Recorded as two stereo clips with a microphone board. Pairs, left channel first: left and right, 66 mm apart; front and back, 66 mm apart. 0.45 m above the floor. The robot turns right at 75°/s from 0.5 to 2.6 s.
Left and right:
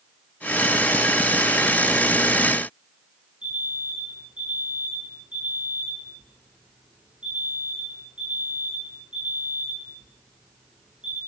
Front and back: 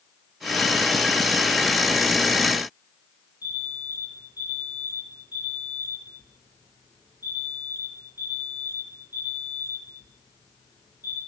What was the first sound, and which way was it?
An alarm, 15° right.